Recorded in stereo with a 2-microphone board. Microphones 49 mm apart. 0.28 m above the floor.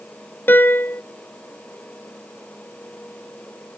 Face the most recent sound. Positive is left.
turn(degrees=45)  # may be behind; listen again after turning